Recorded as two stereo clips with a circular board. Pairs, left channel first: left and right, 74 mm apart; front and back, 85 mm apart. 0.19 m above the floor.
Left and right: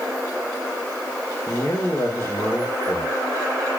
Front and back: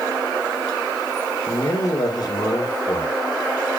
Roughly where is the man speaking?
Ahead left.